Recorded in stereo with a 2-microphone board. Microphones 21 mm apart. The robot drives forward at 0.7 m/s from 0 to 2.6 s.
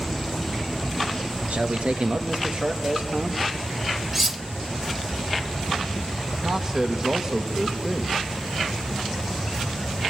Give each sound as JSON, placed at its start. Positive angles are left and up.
{"t": 1.5, "sound": "a man speaking", "side_deg": -75, "distance_m": 1.4}
{"t": 4.1, "sound": "cutlery clinking", "side_deg": -15, "distance_m": 0.5}
{"t": 6.4, "sound": "a man speaking", "side_deg": -20, "distance_m": 2.0}